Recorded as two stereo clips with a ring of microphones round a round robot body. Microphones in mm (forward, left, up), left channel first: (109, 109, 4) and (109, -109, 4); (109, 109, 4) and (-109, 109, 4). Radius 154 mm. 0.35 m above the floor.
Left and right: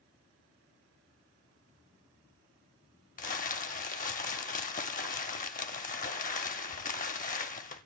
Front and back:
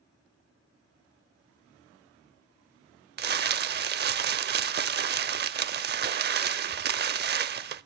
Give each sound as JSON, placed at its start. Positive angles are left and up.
{"t": 3.2, "sound": "crumpling", "azimuth_deg": 145, "distance_m": 0.6}